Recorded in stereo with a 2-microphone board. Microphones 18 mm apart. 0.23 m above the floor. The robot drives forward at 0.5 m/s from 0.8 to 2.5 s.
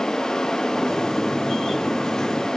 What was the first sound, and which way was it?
Only background noise.